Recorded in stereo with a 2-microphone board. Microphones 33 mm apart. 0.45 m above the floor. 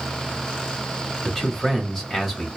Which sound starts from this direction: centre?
A man speaking, at 1.2 s.